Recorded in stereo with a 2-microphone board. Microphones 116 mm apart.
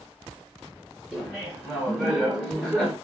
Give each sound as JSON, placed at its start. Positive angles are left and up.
{"t": 1.1, "sound": "laughter", "side_deg": -10, "distance_m": 1.5}